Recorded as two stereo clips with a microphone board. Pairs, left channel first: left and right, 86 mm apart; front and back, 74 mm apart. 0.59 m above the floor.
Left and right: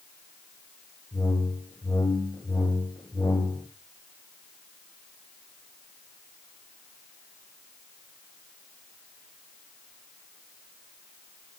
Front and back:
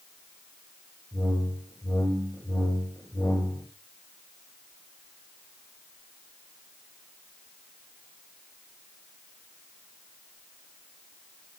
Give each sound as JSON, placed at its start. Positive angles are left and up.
{"t": 1.1, "sound": "a whoosh", "azimuth_deg": 35, "distance_m": 1.7}